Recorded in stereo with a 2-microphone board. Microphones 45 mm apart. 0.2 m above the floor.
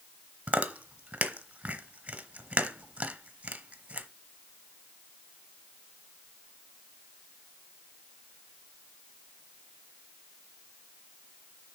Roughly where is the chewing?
Right.